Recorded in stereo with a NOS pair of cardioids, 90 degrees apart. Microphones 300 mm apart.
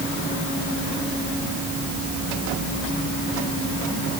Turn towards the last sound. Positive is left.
No sound to turn to.